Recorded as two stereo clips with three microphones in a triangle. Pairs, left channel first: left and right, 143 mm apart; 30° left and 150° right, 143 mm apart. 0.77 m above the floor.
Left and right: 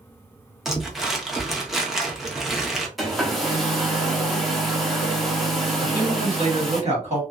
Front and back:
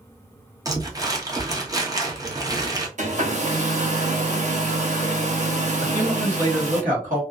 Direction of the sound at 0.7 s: Straight behind.